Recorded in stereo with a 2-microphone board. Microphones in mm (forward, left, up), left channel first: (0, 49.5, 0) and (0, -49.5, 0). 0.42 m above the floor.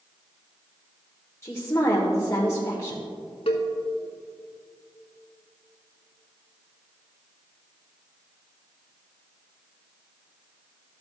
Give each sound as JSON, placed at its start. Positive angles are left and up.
{"t": 1.4, "sound": "a woman speaking", "side_deg": 30, "distance_m": 1.2}
{"t": 3.5, "sound": "a cowbell", "side_deg": 90, "distance_m": 1.2}